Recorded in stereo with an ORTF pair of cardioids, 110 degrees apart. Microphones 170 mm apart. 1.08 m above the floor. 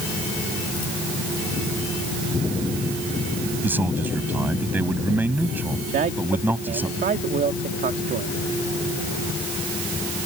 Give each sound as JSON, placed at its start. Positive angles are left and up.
{"t": 3.6, "sound": "a man speaking", "azimuth_deg": -10}
{"t": 5.9, "sound": "a man speaking", "azimuth_deg": -60}